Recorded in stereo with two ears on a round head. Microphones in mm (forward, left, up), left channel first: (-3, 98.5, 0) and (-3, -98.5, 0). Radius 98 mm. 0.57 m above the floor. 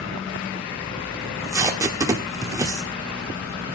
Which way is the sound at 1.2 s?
15° right (ahead or behind).